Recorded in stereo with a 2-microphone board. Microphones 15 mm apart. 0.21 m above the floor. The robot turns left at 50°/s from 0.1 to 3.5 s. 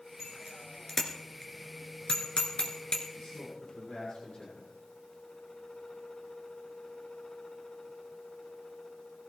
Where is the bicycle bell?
20° right (ahead or behind), 2 m; by 3.0 s 55° left (ahead or behind), 2 m.